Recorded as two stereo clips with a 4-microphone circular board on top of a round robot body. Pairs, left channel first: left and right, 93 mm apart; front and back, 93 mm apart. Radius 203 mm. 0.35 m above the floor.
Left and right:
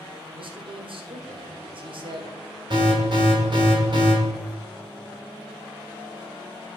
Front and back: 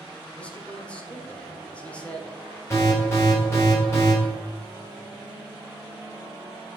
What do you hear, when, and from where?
0.3 s a man speaking: 75° right, 1.7 m
2.7 s an alarm: 60° right, 4.5 m